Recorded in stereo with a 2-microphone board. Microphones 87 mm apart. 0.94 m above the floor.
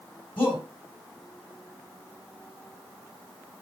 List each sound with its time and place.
0.4 s a shout: 75° left (ahead or behind), 6.5 m